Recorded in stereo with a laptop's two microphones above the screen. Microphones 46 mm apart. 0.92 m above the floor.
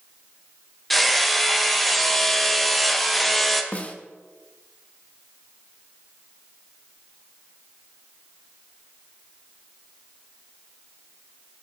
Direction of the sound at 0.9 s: 5° left (ahead or behind).